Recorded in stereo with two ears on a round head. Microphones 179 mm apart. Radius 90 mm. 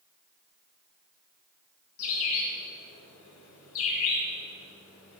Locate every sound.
2.0 s a bird: 80° left, 3.5 m